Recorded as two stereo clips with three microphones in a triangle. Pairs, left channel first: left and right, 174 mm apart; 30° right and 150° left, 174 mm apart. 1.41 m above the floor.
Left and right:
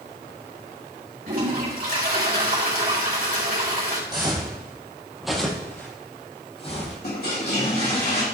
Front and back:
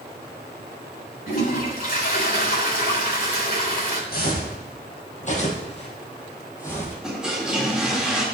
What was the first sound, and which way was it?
A toilet flushing, 55° right.